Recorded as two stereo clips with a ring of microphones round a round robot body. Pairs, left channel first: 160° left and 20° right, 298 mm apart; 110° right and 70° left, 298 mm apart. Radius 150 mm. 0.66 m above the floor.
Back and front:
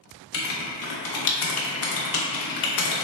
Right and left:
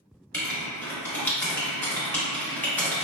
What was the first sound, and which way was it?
Writing, 165° left.